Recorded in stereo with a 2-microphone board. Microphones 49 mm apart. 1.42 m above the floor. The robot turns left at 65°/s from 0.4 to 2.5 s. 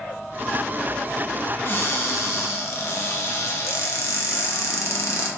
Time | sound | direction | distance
1.6 | a cupboard door | 135° left | 0.6 m